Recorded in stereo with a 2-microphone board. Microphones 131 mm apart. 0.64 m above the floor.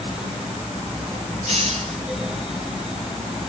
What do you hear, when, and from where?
1.5 s a hiss: 60° right (ahead or behind), 1.7 m